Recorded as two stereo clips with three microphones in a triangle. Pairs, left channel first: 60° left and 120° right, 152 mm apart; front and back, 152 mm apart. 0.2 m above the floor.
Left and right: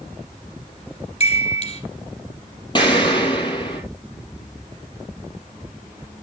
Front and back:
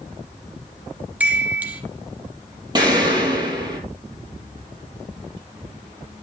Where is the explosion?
120° left, 3.5 m.